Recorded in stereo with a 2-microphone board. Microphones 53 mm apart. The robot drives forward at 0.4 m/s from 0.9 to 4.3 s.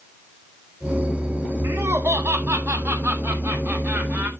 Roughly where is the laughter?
Right.